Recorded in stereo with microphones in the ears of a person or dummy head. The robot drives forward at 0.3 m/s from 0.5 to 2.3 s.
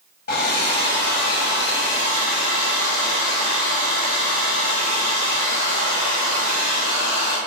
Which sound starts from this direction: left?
A hair dryer, at 0.3 s.